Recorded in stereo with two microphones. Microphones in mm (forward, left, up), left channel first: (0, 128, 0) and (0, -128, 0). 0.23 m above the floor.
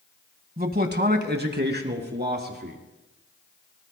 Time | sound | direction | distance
0.6 | a man speaking | 35° right (ahead or behind) | 1.2 m